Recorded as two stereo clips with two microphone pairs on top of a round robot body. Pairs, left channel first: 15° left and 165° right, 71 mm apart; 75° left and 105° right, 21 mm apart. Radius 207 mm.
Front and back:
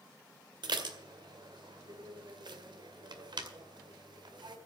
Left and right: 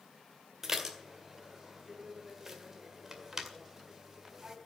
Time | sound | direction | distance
0.6 | dishes clattering | 170° right | 2 m